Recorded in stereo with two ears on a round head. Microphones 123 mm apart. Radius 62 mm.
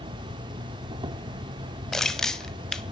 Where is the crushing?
5° left (ahead or behind), 1.0 m.